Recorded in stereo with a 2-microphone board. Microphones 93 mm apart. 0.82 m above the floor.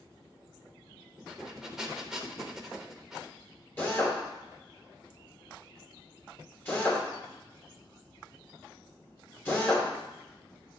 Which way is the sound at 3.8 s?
20° left (ahead or behind).